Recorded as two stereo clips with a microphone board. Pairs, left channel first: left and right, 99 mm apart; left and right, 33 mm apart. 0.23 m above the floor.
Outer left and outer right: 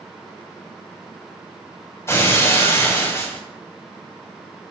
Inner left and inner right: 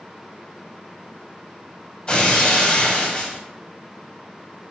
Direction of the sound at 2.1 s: 30° left (ahead or behind).